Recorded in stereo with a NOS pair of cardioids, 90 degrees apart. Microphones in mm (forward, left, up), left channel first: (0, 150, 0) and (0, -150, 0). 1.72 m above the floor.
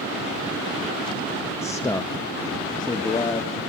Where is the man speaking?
10° left, 0.7 m; by 3.5 s 15° left, 1.6 m.